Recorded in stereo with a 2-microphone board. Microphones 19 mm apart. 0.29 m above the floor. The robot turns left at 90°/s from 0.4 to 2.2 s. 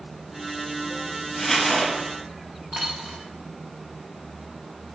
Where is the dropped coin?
90° right, 4.5 m.